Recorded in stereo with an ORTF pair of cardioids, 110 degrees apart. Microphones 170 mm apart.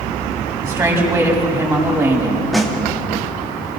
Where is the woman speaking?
15° right, 6.5 m.